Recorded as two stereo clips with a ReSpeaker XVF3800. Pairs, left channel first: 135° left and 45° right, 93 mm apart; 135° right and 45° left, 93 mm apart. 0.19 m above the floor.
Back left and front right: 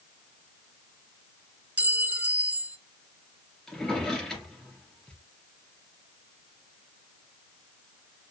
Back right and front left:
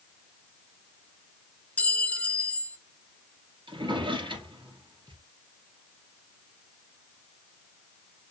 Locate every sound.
1.8 s a clink: 85° right, 0.6 m
3.7 s a drawer: 55° left, 2.5 m